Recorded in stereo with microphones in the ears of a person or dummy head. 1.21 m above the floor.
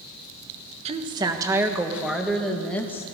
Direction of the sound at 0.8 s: 30° right (ahead or behind).